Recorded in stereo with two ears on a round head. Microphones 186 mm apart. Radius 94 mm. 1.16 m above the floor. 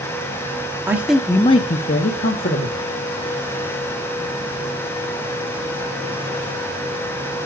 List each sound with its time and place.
0.9 s a man speaking: 10° right (ahead or behind), 0.9 m; by 2.8 s 40° left (ahead or behind), 1.6 m